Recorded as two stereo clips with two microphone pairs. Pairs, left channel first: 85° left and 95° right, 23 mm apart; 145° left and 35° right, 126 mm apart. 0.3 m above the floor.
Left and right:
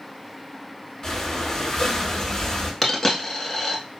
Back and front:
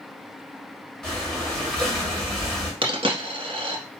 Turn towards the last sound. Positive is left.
turn(degrees=5)